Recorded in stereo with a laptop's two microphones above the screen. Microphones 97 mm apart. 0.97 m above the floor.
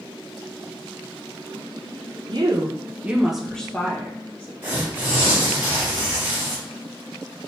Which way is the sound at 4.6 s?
25° right (ahead or behind).